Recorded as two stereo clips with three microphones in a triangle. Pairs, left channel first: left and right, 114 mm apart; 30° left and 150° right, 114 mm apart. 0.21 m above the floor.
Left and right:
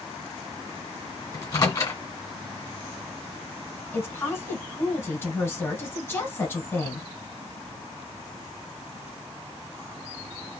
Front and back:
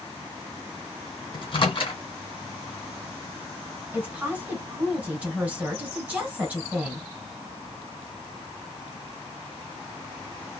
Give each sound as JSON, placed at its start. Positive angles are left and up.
{"t": 1.3, "sound": "a microwave", "azimuth_deg": 45, "distance_m": 1.8}
{"t": 3.9, "sound": "a woman speaking", "azimuth_deg": 140, "distance_m": 1.7}